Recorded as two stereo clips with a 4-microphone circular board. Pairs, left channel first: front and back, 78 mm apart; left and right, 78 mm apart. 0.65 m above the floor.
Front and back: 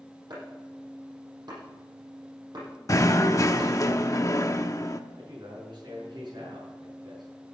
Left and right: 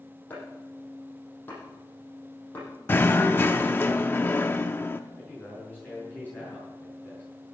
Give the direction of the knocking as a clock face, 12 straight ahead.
11 o'clock.